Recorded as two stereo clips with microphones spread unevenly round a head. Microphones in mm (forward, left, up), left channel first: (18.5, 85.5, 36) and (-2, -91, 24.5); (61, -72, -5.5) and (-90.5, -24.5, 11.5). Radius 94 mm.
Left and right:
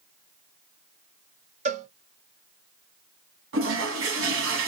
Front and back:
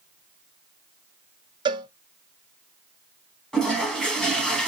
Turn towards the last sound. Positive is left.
turn(degrees=-105)